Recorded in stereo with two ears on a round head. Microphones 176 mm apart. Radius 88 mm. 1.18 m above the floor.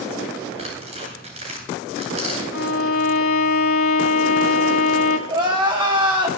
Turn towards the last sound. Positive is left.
turn(degrees=-25)  # may be behind; listen again after turning